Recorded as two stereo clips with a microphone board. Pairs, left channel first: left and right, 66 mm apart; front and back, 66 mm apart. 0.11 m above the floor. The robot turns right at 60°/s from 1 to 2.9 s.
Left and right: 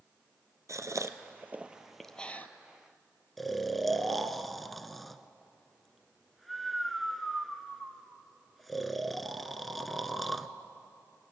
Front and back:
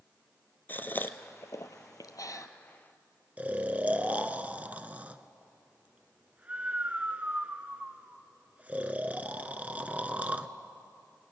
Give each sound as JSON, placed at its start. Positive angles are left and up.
{"t": 0.7, "sound": "a gasp", "azimuth_deg": -60, "distance_m": 0.9}
{"t": 3.4, "sound": "snoring", "azimuth_deg": 175, "distance_m": 0.8}